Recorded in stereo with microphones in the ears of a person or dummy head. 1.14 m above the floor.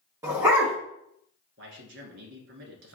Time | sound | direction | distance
0.2 | a dog barking | 20° right (ahead or behind) | 1.1 m
1.6 | a man speaking | 70° right (ahead or behind) | 2 m